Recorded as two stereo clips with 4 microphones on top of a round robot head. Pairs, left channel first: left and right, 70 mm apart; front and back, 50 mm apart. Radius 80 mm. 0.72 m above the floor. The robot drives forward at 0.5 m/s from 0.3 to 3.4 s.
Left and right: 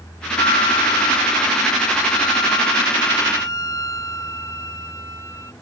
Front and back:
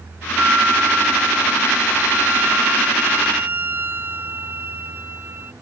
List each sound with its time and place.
0.4 s a flute: 120° left; by 5.5 s 135° left